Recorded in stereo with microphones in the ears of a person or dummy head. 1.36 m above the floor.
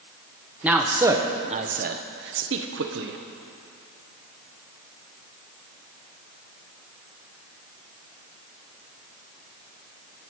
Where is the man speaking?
5° right (ahead or behind), 1.2 m; by 3.2 s 65° right (ahead or behind), 1.2 m.